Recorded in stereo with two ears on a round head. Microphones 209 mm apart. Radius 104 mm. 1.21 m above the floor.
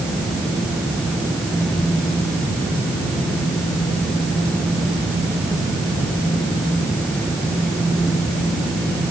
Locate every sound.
Only background noise.